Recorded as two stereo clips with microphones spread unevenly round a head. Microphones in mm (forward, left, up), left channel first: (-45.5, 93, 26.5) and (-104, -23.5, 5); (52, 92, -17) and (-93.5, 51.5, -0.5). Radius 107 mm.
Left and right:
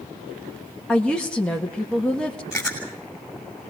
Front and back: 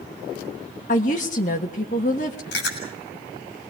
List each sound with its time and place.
0.9 s a woman speaking: 25° right, 1.4 m
2.5 s chewing: 30° right, 6 m